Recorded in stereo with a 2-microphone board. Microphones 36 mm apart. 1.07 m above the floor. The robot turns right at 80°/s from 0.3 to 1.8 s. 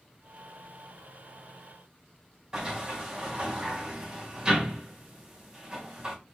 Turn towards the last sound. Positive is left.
turn(degrees=-25)  # may be behind; listen again after turning